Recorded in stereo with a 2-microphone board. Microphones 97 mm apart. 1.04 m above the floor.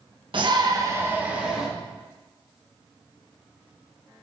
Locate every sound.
0.3 s a shout: 55° right (ahead or behind), 1.3 m; by 1.7 s 5° right (ahead or behind), 1.9 m